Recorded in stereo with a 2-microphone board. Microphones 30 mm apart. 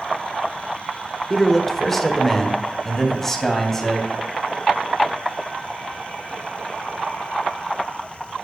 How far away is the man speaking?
About 1.3 m.